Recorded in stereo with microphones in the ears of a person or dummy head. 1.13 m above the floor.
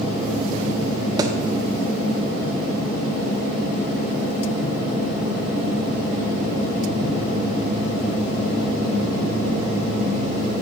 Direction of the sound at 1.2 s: 25° right (ahead or behind).